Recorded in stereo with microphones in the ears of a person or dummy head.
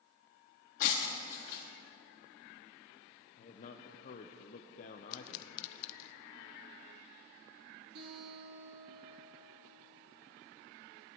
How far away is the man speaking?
About 0.7 m.